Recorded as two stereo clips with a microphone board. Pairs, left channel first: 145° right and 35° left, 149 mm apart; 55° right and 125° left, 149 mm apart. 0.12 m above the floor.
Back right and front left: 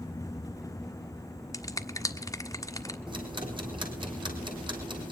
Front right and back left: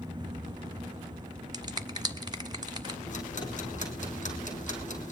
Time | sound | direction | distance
1.5 | a finger snap | 160° left | 1.5 m
3.1 | ticking | 25° right | 3.5 m